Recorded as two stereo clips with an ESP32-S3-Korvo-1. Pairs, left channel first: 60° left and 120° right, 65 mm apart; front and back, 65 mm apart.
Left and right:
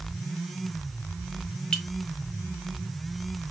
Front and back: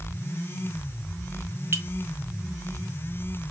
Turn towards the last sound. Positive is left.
turn(degrees=135)